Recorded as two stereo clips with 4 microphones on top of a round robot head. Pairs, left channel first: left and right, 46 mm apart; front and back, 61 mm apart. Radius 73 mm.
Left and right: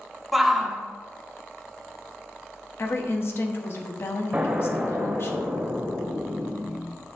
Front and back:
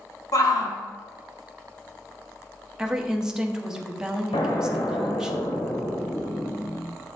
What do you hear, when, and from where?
0.3 s a shout: straight ahead, 1.8 m
2.8 s a woman speaking: 105° left, 1.2 m
4.3 s an explosion: 20° right, 1.5 m